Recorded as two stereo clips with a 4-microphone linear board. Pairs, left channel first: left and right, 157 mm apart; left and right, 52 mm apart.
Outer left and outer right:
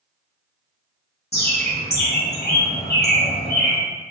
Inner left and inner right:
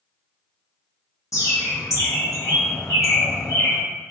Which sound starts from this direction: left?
A bird, at 1.3 s.